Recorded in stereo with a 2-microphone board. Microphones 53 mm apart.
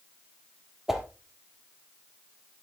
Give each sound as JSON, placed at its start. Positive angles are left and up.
{"t": 0.9, "sound": "a whoosh", "side_deg": -5, "distance_m": 2.5}